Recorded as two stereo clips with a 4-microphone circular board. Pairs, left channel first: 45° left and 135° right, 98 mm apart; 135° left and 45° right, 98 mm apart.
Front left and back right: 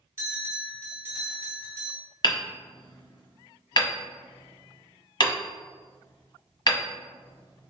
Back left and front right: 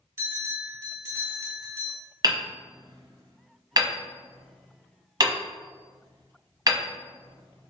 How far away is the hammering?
About 1.0 m.